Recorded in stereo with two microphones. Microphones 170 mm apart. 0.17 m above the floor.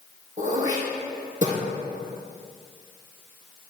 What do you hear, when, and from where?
0.4 s throat clearing: 50° right (ahead or behind), 3.5 m